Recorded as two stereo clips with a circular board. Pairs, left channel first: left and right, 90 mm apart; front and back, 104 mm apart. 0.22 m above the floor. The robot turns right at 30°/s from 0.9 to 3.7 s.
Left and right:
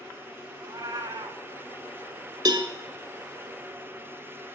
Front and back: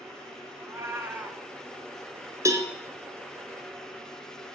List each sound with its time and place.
0.6 s a cat meowing: 120° right, 1.1 m; by 1.4 s 105° right, 1.1 m
2.5 s a cowbell: 125° right, 1.0 m; by 2.7 s 115° right, 1.0 m